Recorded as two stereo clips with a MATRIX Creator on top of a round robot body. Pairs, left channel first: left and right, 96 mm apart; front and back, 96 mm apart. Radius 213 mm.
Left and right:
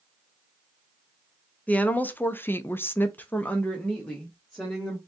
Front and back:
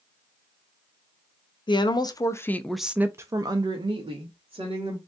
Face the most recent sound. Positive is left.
turn(degrees=175)